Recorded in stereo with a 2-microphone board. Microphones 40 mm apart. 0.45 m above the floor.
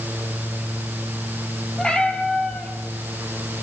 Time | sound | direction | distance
1.8 | a cat meowing | 20° left (ahead or behind) | 6 m